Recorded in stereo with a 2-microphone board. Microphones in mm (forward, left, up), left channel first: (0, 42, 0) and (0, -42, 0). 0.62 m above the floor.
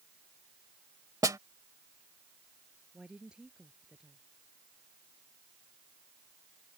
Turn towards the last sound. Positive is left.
turn(degrees=-10)  # may be behind; listen again after turning